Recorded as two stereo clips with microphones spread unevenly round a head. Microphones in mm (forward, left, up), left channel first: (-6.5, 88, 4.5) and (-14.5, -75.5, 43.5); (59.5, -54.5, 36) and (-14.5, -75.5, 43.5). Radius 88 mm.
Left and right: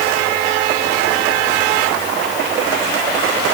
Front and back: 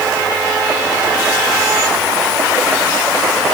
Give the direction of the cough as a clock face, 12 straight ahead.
I don't hear a cough.